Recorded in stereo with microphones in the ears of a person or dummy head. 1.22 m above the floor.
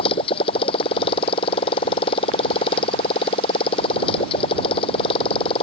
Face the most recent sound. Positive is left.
turn(degrees=30)  # may be behind; listen again after turning